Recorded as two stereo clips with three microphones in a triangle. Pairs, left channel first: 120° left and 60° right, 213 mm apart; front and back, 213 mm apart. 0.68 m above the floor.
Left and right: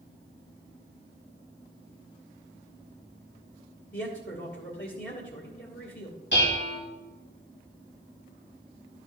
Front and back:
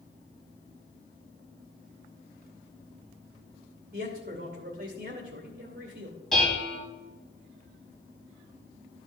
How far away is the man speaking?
About 2 m.